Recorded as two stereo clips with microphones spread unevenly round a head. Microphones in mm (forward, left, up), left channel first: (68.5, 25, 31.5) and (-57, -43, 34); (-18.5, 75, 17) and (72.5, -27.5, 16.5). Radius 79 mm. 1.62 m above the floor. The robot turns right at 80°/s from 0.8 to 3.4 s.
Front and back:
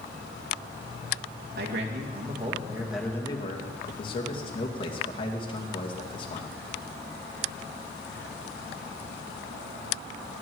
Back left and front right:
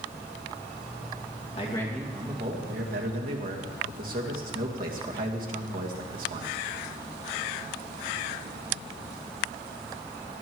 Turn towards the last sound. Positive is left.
turn(degrees=-25)